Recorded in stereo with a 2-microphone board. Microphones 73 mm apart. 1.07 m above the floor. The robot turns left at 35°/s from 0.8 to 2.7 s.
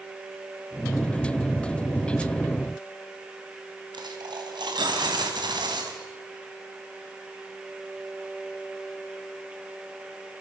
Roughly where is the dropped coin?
Right.